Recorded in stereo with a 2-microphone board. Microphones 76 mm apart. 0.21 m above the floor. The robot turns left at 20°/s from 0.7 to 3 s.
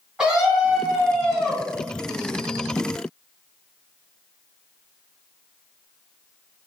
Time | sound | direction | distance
0.2 | a scream | 10° right (ahead or behind) | 2.0 m